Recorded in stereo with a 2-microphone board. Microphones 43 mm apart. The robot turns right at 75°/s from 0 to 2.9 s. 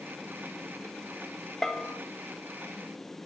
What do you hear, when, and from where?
1.6 s a bell: 10° left (ahead or behind), 1.1 m; by 2.0 s 35° left (ahead or behind), 1.1 m